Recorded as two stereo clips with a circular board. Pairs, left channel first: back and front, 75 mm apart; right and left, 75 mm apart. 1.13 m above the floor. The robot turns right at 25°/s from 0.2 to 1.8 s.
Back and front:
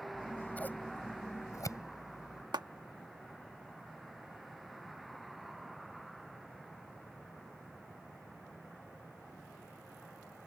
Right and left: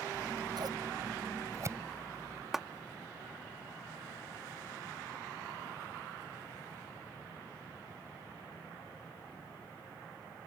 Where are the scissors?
100° left; by 2.4 s 140° left.